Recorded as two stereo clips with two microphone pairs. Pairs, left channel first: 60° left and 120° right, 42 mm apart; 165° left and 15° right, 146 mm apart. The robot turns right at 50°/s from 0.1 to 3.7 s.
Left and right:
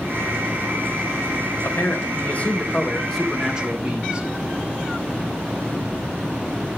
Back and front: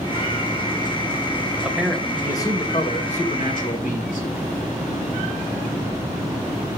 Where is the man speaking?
65° left, 2.5 m; by 4.3 s 170° left, 2.5 m.